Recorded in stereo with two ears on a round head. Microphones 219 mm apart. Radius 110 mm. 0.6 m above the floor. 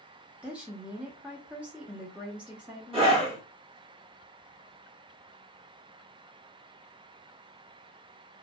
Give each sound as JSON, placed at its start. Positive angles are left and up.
{"t": 0.4, "sound": "a woman speaking", "side_deg": -5, "distance_m": 0.6}
{"t": 2.9, "sound": "a scream", "side_deg": -25, "distance_m": 1.5}